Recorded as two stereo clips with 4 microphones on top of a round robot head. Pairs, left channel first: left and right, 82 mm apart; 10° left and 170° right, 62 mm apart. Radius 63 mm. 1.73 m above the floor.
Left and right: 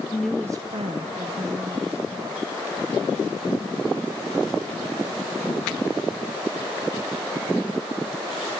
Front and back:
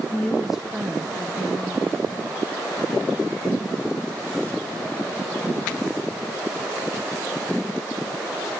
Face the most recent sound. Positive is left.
turn(degrees=-105)